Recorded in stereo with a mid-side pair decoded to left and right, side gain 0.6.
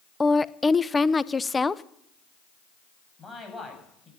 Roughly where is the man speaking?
Ahead.